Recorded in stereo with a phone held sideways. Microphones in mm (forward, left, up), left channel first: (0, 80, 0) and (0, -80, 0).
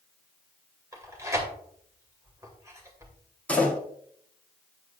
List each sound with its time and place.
0.9 s tearing paper: 20° right (ahead or behind), 2 m
3.5 s a door slam: 10° left (ahead or behind), 2.5 m